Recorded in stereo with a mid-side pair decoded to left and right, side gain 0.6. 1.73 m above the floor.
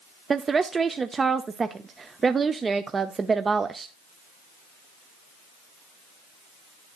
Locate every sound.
0.3 s a woman speaking: 25° right, 0.7 m